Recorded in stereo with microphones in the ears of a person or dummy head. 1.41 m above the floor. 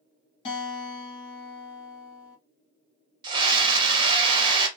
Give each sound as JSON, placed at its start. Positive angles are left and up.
{"t": 0.5, "sound": "a guitar", "side_deg": 30, "distance_m": 2.0}
{"t": 3.2, "sound": "a scream", "side_deg": -30, "distance_m": 1.2}